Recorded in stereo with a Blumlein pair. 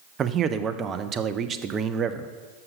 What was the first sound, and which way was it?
A man speaking, 25° right.